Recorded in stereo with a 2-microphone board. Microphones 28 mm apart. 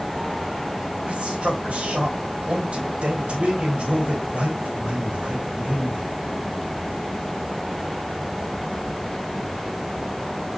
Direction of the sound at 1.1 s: 50° right (ahead or behind).